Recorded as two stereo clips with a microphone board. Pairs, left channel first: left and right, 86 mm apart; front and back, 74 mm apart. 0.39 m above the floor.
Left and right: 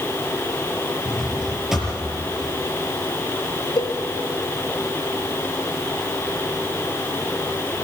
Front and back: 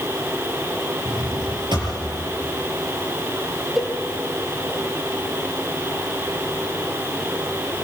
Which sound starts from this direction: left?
A cowbell, at 3.8 s.